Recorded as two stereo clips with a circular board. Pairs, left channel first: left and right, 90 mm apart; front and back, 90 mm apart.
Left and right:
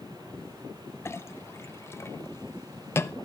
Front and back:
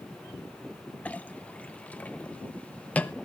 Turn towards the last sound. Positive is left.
turn(degrees=60)